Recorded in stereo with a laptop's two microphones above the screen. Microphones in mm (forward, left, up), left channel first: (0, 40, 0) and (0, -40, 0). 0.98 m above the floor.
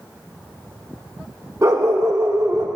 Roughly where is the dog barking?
Right.